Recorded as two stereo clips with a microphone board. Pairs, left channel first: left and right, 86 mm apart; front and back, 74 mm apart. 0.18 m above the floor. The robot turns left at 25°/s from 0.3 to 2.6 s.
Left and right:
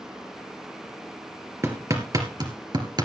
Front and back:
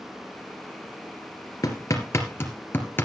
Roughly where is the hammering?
Ahead right.